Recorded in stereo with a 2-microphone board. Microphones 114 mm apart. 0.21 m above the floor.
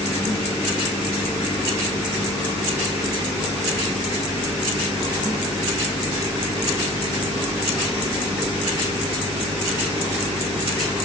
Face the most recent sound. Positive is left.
No sound to turn to.